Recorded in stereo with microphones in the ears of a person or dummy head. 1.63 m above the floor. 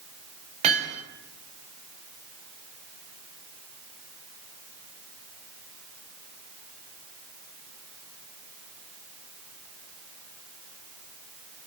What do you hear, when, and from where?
0.6 s hammering: 35° right (ahead or behind), 5 m